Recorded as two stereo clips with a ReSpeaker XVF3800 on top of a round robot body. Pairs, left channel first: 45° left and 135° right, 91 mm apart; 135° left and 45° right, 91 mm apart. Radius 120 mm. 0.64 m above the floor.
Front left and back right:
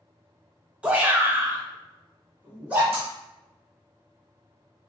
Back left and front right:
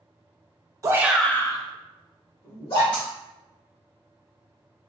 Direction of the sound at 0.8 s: 65° right.